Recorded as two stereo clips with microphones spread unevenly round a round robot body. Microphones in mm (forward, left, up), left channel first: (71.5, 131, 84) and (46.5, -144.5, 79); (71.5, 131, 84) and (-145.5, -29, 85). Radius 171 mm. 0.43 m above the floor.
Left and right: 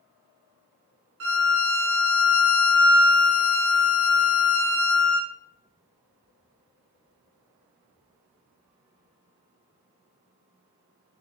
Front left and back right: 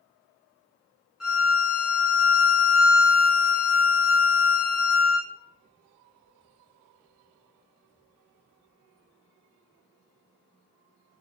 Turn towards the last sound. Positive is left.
turn(degrees=-55)